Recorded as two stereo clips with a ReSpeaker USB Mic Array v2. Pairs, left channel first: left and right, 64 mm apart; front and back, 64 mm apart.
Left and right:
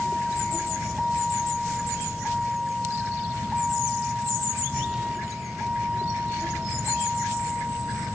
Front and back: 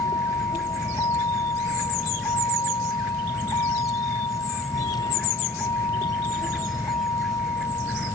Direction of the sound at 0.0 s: 5° left.